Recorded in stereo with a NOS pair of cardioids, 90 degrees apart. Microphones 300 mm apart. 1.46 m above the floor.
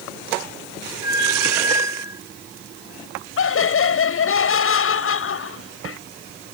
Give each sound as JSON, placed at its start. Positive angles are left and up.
{"t": 1.0, "sound": "a squeak", "azimuth_deg": -10}
{"t": 3.4, "sound": "laughter", "azimuth_deg": 45}